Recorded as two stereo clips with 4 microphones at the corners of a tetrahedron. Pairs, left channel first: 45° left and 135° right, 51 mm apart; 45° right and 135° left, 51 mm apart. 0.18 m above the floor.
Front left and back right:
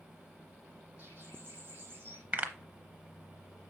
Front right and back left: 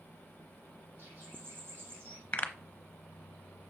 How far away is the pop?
About 0.9 m.